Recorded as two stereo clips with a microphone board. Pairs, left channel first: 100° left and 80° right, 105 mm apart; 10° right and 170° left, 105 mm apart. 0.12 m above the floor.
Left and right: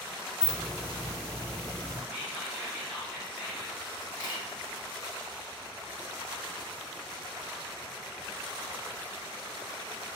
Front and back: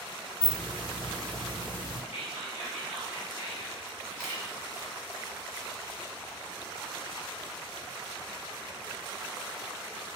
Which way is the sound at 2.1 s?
5° right.